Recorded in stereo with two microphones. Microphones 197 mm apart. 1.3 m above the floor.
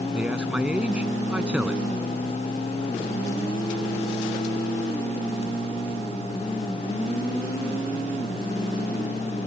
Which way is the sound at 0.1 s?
5° right (ahead or behind).